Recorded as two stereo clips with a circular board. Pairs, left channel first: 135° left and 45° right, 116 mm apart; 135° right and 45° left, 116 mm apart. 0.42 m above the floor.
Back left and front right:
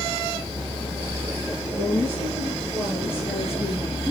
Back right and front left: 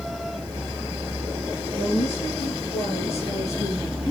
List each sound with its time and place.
1.7 s a woman speaking: 115° right, 5.5 m; by 4.1 s 135° right, 4 m